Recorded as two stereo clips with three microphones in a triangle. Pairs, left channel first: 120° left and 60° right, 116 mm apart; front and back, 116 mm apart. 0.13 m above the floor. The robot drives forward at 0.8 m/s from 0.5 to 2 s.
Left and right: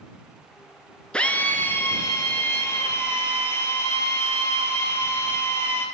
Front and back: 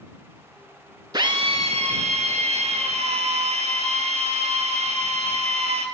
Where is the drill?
165° right, 0.5 m; by 5.9 s 175° right, 1.1 m.